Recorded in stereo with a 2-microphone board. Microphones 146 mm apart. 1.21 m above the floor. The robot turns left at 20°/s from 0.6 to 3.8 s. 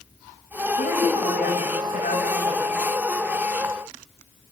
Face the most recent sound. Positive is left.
turn(degrees=35)